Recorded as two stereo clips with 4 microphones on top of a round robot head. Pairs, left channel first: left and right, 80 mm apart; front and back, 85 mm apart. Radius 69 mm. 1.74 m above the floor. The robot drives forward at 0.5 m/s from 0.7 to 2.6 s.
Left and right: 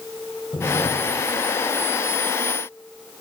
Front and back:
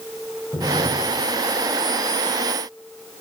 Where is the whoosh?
45° left, 2 m; by 1.2 s 55° left, 2.0 m.